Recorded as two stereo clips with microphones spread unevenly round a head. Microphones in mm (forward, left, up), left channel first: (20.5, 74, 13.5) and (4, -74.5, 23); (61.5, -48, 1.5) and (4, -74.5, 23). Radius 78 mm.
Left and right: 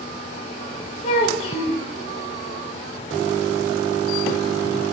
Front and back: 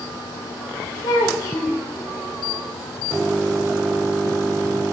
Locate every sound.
1.0 s a child speaking: 55° left, 0.5 m